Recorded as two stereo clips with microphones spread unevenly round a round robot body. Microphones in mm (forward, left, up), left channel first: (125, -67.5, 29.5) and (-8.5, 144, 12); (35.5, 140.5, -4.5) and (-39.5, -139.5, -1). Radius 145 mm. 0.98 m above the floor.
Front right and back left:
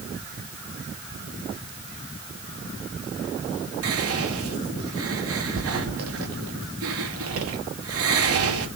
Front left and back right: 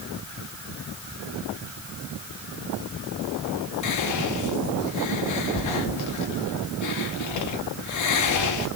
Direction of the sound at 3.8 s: 100° left.